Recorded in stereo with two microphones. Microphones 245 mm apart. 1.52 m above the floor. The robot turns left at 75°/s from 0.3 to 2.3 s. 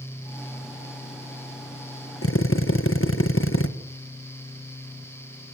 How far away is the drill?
About 1.5 m.